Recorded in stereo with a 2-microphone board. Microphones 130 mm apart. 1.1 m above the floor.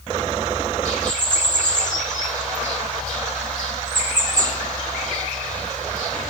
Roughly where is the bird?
Left.